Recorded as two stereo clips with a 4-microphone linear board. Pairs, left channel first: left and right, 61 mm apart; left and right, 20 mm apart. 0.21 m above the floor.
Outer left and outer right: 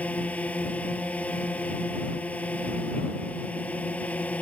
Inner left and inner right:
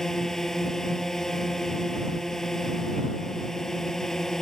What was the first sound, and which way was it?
A drone, 25° left (ahead or behind).